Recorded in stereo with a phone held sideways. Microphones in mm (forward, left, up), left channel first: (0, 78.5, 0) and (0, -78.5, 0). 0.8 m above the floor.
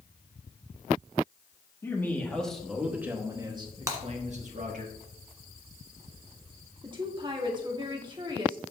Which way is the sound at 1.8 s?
15° left (ahead or behind).